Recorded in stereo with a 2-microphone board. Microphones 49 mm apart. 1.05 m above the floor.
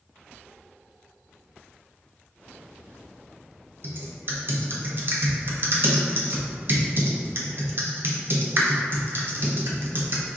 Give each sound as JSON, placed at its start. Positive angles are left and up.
{"t": 3.8, "sound": "typing on a keyboard", "side_deg": -50, "distance_m": 0.7}